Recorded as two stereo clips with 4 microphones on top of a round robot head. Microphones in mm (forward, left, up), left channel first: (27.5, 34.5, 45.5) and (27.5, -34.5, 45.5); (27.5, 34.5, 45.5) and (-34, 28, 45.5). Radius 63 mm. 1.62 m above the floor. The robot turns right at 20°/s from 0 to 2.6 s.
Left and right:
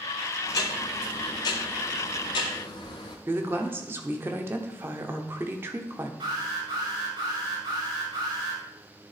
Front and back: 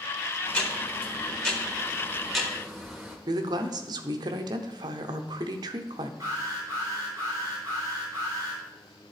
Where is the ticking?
60° left, 1.3 m; by 3.2 s 105° left, 1.3 m.